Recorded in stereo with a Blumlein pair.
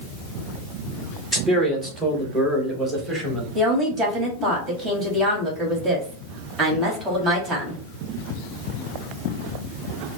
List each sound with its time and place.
1.3 s a man speaking: 5° right, 1.8 m
3.5 s a woman speaking: 20° right, 2.5 m